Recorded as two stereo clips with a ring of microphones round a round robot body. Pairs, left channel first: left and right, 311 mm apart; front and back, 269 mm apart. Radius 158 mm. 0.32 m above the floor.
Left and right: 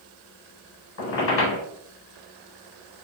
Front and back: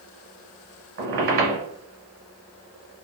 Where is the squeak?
140° left, 1.5 m.